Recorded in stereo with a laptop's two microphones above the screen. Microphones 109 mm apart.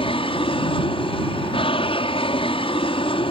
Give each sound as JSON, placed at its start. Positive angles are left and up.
{"t": 0.0, "sound": "an aircraft", "side_deg": 55}